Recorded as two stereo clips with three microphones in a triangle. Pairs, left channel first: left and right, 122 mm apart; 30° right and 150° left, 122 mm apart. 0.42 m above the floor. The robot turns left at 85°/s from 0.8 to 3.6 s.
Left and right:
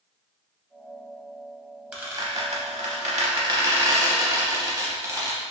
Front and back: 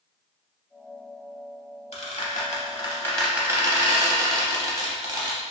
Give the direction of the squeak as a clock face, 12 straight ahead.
12 o'clock.